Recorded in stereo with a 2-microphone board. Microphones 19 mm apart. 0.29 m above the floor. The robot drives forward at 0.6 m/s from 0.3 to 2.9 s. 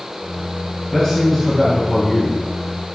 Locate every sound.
0.9 s a man speaking: 20° left (ahead or behind), 4 m; by 2.4 s 25° left (ahead or behind), 3.5 m